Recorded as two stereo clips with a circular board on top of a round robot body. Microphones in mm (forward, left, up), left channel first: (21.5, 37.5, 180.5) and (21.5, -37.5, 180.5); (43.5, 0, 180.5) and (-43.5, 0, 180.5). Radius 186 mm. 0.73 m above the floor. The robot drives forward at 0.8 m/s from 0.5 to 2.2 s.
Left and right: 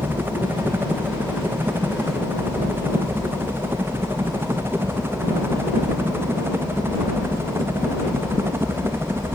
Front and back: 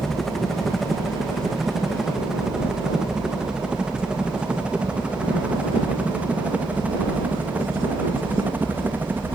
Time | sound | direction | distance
0.0 | a helicopter | 85° right | ?